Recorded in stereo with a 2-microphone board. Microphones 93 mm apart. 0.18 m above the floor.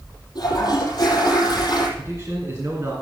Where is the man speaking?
35° right (ahead or behind), 2.5 m.